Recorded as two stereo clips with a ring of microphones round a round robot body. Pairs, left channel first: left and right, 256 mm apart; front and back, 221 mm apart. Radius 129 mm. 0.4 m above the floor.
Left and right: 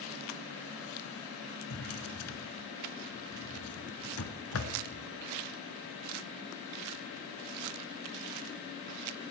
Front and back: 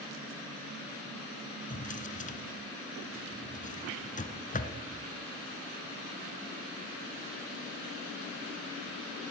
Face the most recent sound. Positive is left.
turn(degrees=55)